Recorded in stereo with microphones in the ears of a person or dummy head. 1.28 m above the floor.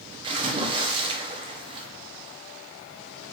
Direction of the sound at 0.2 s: 30° right (ahead or behind).